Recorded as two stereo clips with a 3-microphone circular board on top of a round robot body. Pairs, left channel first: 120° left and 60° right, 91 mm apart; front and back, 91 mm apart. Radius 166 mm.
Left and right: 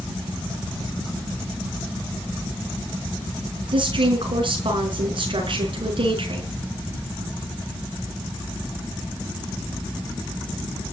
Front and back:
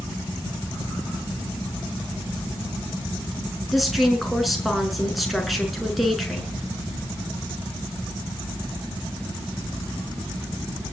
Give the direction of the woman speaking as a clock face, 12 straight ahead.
3 o'clock.